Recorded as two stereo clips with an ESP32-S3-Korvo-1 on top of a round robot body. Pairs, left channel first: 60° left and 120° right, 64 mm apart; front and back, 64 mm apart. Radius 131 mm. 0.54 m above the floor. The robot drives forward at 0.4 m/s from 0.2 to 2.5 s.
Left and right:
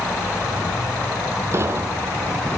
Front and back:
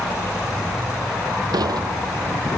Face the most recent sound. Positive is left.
turn(degrees=-170)